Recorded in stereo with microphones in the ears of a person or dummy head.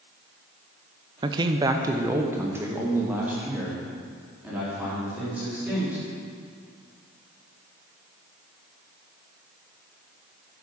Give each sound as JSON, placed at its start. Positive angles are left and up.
{"t": 1.2, "sound": "a man speaking", "side_deg": -20, "distance_m": 0.5}